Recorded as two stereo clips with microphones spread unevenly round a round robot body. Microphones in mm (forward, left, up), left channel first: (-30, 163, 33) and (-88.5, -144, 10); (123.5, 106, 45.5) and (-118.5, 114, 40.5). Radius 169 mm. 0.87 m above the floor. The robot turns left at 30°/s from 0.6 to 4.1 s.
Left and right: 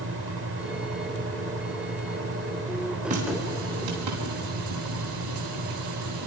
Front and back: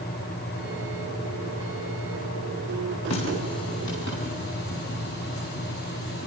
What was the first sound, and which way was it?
A running tap, 30° right.